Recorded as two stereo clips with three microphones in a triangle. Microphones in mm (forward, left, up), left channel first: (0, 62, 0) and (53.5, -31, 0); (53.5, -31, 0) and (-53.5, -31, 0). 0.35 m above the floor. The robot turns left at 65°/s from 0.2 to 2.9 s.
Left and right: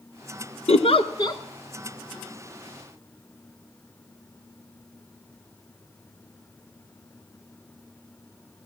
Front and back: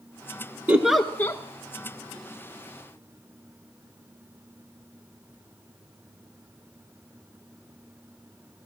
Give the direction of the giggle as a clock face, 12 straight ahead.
8 o'clock.